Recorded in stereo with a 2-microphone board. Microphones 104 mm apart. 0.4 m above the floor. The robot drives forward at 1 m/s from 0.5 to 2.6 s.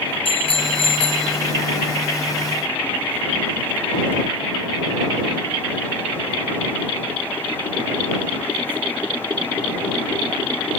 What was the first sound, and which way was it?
A bicycle bell, 70° left (ahead or behind).